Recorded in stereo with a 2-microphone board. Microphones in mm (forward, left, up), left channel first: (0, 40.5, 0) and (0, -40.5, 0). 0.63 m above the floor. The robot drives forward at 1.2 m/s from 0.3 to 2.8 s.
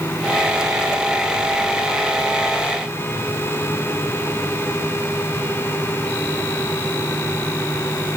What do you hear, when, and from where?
Only background noise.